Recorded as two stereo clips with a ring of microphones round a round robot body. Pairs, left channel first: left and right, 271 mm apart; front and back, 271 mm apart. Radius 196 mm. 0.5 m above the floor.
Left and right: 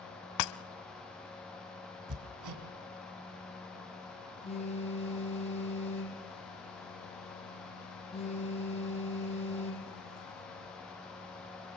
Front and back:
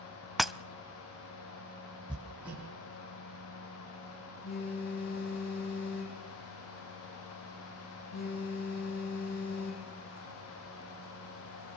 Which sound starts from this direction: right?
Hammering, at 2.1 s.